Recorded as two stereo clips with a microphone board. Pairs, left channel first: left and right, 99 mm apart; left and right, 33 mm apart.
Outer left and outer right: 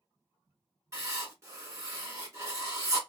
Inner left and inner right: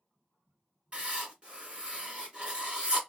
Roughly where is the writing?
Right.